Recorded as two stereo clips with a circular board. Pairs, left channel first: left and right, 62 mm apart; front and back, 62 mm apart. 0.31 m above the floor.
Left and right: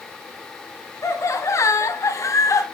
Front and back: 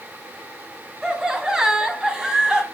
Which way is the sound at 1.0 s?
100° left.